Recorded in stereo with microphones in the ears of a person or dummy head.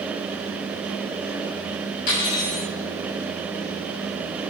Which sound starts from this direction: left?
Cutlery clinking, at 2.1 s.